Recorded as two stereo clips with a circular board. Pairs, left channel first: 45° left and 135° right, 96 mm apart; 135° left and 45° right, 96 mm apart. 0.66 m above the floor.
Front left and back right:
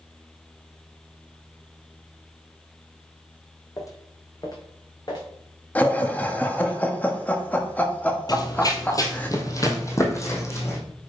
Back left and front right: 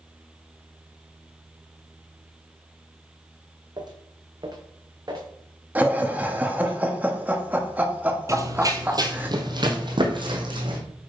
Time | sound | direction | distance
3.8 | footsteps | 5° right | 1.5 m
5.8 | laughter | straight ahead | 1.2 m
8.3 | running footsteps | 10° left | 1.1 m